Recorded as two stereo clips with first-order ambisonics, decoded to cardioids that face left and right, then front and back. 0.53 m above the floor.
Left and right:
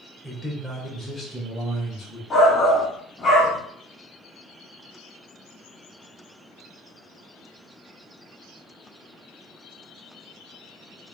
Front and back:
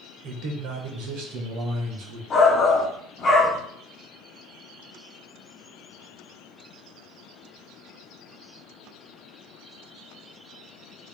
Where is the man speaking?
165° right, 1.3 m; by 2.2 s 165° left, 2.5 m.